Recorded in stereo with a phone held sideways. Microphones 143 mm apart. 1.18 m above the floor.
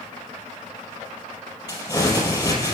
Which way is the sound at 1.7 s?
30° left (ahead or behind).